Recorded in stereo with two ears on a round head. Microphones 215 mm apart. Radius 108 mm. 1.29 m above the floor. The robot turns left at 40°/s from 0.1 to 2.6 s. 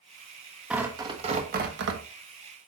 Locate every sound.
0.7 s tearing paper: 5° right, 1.3 m; by 2.0 s 55° right, 1.3 m